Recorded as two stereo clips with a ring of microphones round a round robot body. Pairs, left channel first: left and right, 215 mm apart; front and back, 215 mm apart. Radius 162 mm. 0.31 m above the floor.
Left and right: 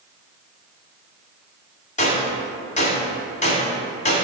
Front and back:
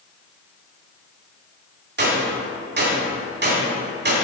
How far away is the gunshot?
About 2 m.